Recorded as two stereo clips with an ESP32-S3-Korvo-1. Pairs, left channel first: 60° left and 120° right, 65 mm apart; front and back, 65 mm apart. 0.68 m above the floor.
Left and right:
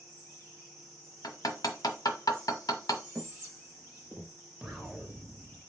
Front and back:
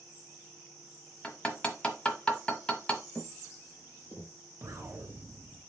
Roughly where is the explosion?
Behind left.